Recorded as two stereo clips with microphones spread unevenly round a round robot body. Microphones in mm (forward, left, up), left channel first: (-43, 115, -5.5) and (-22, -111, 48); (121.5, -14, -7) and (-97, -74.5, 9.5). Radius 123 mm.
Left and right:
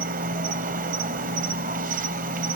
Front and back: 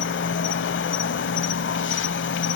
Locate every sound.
0.0 s an insect: 25° right, 0.7 m